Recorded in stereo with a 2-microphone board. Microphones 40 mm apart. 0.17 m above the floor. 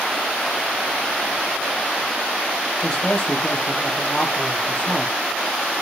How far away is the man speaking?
About 5.5 m.